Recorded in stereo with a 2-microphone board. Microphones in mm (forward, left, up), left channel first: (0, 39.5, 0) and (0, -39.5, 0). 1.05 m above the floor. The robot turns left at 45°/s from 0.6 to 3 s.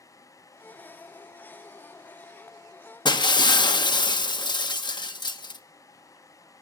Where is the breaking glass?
75° left (ahead or behind), 0.7 m.